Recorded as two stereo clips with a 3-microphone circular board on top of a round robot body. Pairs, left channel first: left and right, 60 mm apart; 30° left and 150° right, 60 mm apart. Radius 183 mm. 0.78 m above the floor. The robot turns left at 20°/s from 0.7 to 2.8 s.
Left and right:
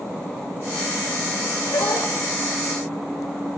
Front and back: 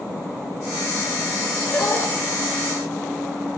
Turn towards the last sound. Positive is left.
turn(degrees=60)